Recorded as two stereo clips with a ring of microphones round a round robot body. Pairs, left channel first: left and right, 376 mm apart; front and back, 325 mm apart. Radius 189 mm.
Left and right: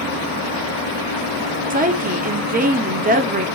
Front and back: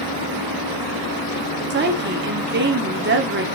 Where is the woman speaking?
145° right, 1.3 m.